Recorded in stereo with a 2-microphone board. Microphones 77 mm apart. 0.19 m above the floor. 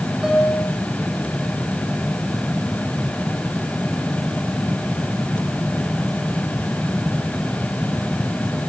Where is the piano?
5° right (ahead or behind), 6 m.